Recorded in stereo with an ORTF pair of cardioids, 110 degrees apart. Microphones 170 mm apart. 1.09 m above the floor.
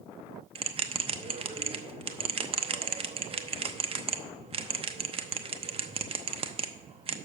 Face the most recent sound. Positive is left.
turn(degrees=-35)